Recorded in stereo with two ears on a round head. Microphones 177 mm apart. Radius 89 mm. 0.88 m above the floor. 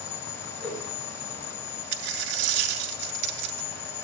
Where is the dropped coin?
60° right (ahead or behind), 1.5 m.